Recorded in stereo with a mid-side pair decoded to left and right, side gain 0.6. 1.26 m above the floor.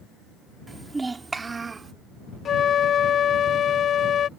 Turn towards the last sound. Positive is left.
turn(degrees=40)